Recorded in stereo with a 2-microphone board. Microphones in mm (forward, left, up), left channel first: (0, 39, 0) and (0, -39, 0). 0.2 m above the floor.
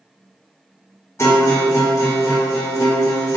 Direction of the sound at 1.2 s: 35° left (ahead or behind).